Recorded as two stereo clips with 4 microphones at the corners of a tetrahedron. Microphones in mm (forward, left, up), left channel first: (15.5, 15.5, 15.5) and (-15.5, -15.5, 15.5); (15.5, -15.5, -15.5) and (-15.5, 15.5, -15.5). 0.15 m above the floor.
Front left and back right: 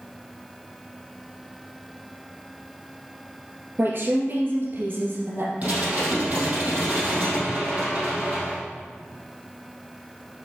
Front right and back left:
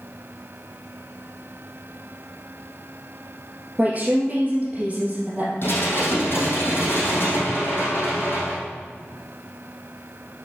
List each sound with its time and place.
3.8 s a woman speaking: 165° right, 2.5 m
5.6 s dishes clattering: 80° right, 3.5 m